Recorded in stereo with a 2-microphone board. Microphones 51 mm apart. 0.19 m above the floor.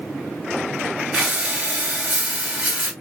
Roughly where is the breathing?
Right.